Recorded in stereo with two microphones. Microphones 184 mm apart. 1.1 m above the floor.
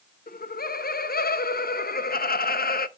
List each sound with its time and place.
0.3 s laughter: 55° left (ahead or behind), 0.5 m